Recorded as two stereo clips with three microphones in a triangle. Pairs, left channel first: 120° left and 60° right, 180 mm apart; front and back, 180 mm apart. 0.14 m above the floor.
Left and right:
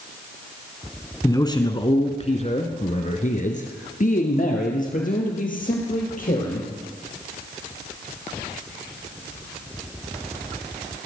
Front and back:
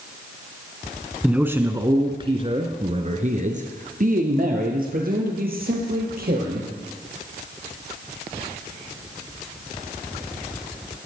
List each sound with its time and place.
1.2 s a man speaking: 105° left, 1.1 m; by 6.7 s 155° left, 3.5 m